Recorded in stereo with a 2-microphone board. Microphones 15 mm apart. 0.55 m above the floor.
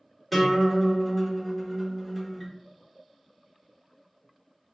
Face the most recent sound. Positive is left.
turn(degrees=5)  # may be behind; listen again after turning